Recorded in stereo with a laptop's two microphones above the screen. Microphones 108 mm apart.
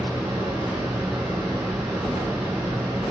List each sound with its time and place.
0.0 s a fan: centre (ahead or behind), 0.8 m